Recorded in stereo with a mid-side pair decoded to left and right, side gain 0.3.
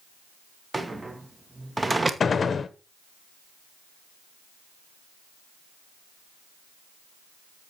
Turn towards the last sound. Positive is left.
turn(degrees=55)